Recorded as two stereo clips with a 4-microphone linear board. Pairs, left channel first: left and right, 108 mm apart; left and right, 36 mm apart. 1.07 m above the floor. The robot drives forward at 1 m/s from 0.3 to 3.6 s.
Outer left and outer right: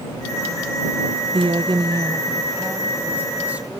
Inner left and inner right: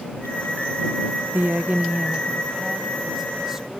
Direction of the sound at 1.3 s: 60° right (ahead or behind).